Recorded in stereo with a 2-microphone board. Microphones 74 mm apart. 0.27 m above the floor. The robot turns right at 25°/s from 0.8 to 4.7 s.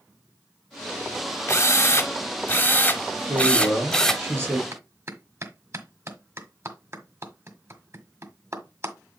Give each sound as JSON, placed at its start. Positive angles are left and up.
{"t": 1.5, "sound": "a drill", "azimuth_deg": 105, "distance_m": 1.3}
{"t": 3.3, "sound": "a man speaking", "azimuth_deg": -60, "distance_m": 5.0}
{"t": 4.7, "sound": "a clap", "side_deg": -40, "distance_m": 1.6}